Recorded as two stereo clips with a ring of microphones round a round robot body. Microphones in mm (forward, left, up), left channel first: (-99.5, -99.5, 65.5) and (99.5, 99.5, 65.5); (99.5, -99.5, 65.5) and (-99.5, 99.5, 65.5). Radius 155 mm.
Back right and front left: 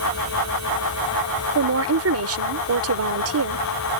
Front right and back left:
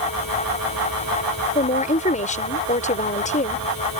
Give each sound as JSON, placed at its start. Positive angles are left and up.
{"t": 1.6, "sound": "a woman speaking", "azimuth_deg": 15}